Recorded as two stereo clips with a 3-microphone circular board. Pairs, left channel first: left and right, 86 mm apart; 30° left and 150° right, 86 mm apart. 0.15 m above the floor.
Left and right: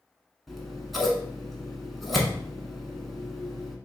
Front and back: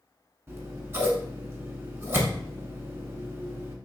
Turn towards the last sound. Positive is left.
turn(degrees=180)